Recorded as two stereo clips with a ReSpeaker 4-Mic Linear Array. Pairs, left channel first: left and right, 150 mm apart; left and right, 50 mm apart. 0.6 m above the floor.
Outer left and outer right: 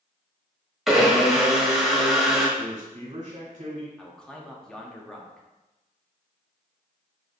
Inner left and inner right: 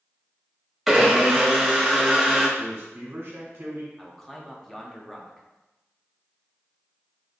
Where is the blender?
Centre (ahead or behind), 1.0 m.